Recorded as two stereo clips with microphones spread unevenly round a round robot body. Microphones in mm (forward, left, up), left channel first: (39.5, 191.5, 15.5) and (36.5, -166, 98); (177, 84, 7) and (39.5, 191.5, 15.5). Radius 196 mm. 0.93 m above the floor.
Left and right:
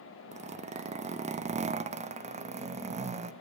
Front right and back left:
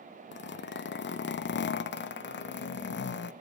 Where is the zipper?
15° right, 0.6 m.